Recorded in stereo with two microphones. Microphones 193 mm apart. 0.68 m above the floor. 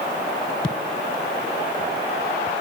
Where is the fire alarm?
No fire alarm in this recording.